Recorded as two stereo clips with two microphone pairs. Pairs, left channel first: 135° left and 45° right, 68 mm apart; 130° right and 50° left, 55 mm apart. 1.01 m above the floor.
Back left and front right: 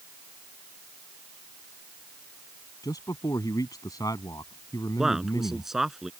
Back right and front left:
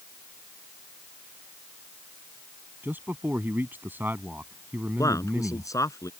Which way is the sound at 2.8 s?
105° left.